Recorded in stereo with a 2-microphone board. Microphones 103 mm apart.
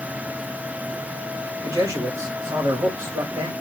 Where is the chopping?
I don't hear chopping.